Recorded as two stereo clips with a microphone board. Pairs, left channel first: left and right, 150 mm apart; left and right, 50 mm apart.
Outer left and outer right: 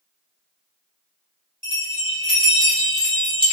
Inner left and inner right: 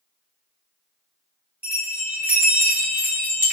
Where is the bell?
35° right (ahead or behind), 1.6 m.